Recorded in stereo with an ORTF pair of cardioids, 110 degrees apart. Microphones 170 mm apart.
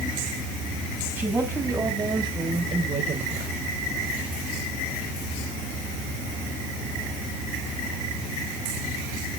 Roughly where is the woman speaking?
Ahead.